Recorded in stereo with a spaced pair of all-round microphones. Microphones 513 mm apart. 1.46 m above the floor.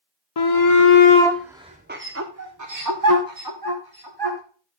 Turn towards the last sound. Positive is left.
turn(degrees=-50)  # may be behind; listen again after turning